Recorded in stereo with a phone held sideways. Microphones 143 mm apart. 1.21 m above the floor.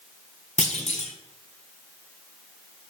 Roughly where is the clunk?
Left.